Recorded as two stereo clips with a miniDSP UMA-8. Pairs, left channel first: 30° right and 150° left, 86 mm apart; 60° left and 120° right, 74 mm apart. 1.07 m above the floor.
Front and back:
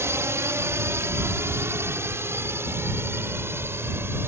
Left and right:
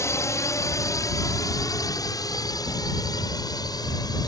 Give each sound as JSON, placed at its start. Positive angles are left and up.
{"t": 0.0, "sound": "a drone", "azimuth_deg": 100}